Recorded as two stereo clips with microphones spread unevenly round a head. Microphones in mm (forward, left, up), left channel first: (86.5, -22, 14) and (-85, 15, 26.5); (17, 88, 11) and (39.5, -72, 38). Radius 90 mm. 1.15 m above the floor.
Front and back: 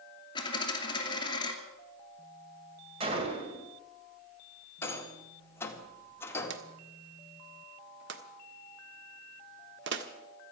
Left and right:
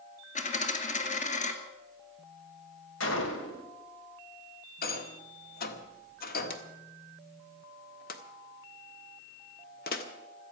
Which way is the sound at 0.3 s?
55° left.